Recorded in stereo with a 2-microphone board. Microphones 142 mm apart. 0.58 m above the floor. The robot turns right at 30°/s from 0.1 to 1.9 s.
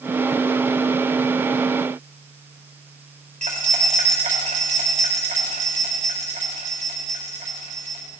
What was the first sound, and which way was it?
Keys jangling, 65° right (ahead or behind).